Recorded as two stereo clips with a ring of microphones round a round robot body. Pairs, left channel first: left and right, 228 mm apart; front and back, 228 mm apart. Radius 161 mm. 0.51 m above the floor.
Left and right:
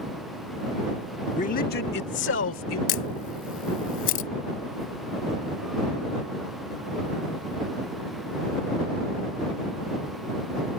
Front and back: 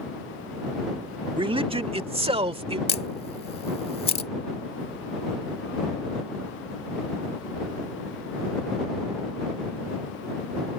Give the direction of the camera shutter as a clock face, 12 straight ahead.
10 o'clock.